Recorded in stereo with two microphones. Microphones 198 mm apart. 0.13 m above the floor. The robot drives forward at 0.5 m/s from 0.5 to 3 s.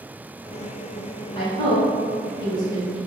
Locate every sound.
1.4 s a woman speaking: 25° left (ahead or behind), 1.3 m; by 3.0 s 20° left (ahead or behind), 1.6 m